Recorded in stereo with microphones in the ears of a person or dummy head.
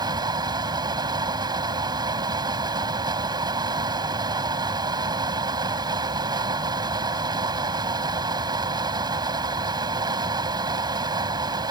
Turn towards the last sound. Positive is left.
turn(degrees=-25)  # may be behind; listen again after turning